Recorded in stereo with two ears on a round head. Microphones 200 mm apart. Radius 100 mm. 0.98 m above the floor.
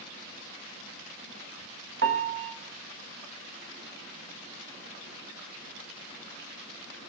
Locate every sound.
2.0 s a piano: 55° right (ahead or behind), 1.5 m